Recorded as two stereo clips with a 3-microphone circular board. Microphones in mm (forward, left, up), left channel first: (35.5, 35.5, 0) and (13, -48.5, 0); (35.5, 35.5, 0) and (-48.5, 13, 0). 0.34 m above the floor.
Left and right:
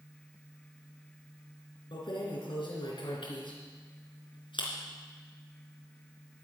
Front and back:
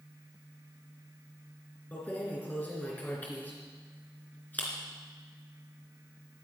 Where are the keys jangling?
85° left, 3.5 m.